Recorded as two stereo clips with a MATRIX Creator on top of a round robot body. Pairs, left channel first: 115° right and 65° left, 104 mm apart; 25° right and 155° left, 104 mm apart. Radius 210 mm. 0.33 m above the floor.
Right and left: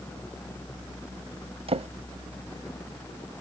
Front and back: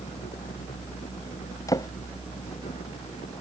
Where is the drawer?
35° left.